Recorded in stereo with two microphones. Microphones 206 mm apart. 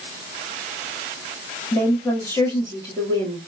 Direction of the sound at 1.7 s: 15° left (ahead or behind).